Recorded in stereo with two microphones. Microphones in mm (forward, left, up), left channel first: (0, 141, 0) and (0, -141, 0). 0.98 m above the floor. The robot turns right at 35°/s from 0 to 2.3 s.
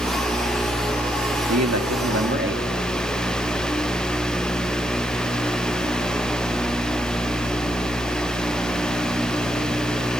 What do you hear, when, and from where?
1.5 s a man speaking: 65° right (ahead or behind), 2 m; by 2.6 s 40° right (ahead or behind), 2 m